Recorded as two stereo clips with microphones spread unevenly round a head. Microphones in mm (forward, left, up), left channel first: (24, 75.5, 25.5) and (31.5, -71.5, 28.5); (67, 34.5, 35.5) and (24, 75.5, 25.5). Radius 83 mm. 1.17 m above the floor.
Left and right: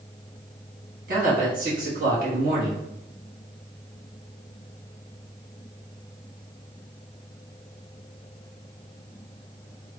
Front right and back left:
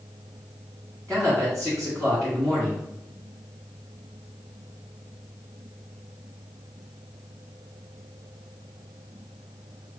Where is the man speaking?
125° right, 1.5 m.